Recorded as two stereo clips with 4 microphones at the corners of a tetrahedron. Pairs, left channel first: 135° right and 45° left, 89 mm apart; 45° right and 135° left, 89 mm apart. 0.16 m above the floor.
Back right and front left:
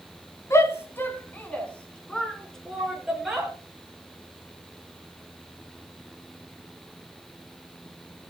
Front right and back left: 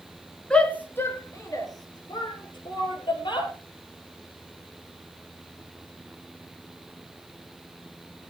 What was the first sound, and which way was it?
A shout, 115° right.